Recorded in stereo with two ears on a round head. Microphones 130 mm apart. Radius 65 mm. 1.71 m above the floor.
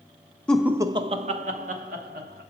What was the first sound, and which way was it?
Laughter, 10° left (ahead or behind).